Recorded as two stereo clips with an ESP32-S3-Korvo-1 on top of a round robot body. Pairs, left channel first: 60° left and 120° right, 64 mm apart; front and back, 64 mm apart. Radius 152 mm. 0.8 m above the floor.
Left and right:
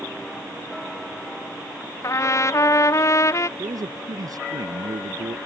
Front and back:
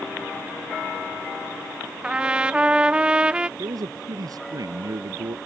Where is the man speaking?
150° right.